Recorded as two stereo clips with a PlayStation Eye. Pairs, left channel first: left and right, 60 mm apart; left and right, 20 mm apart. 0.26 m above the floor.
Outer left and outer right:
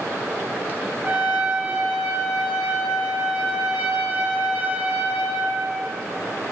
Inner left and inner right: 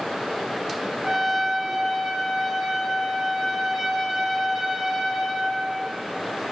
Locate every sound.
1.0 s a trumpet: 20° right (ahead or behind), 1.6 m